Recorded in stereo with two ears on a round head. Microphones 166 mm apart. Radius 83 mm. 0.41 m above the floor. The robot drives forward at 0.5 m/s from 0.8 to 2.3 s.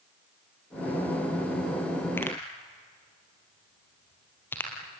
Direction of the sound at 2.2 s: 10° left (ahead or behind).